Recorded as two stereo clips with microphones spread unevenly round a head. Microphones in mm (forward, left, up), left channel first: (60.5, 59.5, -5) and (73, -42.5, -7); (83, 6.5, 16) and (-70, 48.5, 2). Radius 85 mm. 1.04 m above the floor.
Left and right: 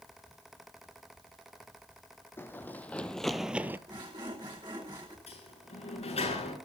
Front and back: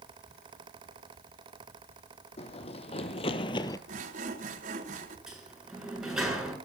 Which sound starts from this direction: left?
A sliding door, at 5.3 s.